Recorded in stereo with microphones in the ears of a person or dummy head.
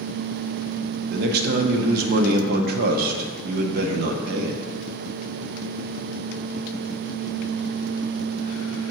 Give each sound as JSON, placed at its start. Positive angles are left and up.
{"t": 1.1, "sound": "a man speaking", "side_deg": -60, "distance_m": 0.8}